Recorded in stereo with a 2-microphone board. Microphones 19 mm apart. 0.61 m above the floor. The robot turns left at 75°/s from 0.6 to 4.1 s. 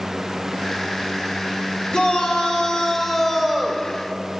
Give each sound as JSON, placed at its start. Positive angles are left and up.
{"t": 1.9, "sound": "a shout", "azimuth_deg": 110, "distance_m": 2.5}